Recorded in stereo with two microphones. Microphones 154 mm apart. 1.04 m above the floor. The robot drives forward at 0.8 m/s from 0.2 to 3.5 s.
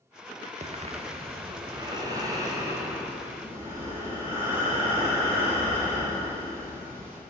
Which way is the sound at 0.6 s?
45° right (ahead or behind).